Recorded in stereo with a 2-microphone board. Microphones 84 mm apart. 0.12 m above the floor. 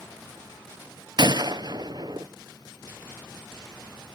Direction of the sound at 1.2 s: 55° right (ahead or behind).